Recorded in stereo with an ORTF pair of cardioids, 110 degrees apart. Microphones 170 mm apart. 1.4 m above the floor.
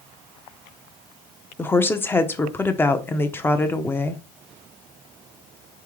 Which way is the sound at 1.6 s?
10° left.